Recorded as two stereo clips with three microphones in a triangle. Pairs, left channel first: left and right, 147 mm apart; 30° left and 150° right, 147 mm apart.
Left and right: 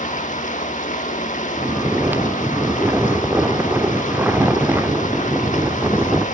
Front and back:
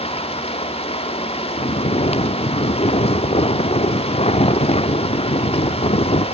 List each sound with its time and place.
0.0 s running water: 70° left, 1.6 m
1.6 s snoring: 15° right, 0.8 m